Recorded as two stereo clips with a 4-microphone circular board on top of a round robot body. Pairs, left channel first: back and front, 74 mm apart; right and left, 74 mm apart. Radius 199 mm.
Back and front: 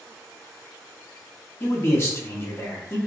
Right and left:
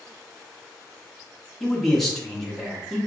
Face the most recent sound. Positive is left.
turn(degrees=-175)